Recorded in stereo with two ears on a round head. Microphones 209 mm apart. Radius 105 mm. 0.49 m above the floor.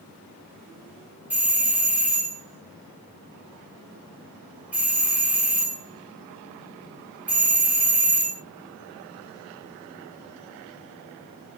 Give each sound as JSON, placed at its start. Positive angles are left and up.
{"t": 1.3, "sound": "a doorbell", "side_deg": -5, "distance_m": 1.4}